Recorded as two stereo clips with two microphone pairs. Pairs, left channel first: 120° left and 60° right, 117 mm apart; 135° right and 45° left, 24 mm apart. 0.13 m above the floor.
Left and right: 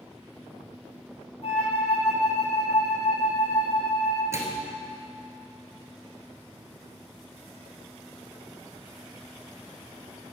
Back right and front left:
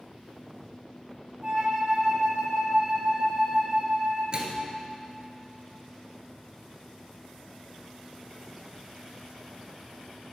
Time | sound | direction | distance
1.4 | a flute | 105° left | 1.9 m
4.3 | a microwave | straight ahead | 1.4 m